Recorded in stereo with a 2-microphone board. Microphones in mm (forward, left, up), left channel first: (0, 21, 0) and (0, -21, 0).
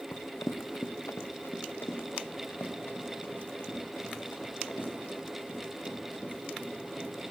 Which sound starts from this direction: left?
Running footsteps, at 0.1 s.